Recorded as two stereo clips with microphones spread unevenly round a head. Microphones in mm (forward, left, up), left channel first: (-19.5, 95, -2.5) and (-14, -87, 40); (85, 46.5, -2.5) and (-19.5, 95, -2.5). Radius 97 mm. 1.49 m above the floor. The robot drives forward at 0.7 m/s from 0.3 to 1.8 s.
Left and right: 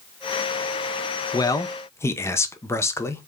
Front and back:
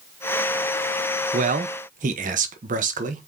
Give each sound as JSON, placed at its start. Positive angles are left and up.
{"t": 1.3, "sound": "a man speaking", "azimuth_deg": 165, "distance_m": 0.6}